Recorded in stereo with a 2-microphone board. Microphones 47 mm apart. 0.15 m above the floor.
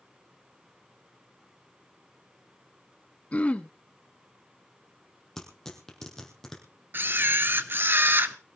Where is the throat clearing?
30° left (ahead or behind), 0.9 m.